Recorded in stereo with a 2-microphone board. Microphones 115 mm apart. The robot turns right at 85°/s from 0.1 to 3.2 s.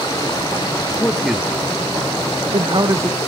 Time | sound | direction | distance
1.0 | a man speaking | 20° left (ahead or behind) | 1.0 m